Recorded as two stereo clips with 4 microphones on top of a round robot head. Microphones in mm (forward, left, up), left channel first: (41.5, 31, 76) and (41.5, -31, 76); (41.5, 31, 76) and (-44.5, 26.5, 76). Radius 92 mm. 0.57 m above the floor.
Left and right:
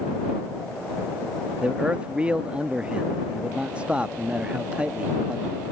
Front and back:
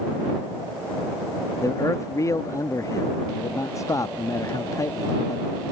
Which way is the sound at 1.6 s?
25° right.